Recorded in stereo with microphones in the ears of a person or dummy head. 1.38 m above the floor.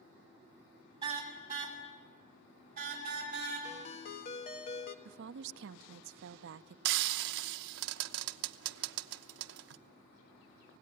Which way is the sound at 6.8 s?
75° right (ahead or behind).